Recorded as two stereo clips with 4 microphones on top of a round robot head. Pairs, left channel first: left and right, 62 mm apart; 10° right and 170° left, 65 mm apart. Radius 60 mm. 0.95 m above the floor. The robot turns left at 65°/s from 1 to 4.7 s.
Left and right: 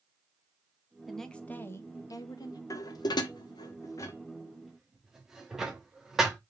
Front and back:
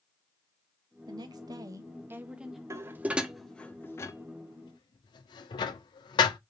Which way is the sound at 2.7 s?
125° left.